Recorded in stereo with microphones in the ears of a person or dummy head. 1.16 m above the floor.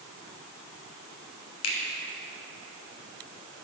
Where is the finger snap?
80° left, 0.9 m.